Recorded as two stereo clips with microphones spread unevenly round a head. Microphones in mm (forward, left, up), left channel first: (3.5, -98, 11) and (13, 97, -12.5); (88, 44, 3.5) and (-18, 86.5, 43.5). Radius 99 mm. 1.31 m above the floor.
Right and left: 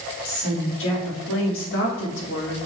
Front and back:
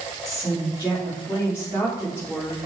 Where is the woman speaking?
120° right, 3.5 m.